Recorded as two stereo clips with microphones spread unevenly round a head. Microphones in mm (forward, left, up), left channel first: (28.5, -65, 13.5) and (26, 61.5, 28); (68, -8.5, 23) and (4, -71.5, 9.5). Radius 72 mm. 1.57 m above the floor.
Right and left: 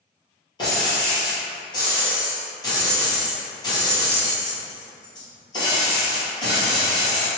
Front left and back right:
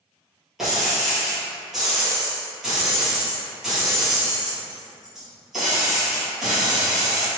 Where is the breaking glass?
40° right, 2.0 m.